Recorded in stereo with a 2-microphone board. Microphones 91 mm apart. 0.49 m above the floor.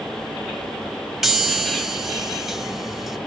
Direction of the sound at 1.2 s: 5° right (ahead or behind).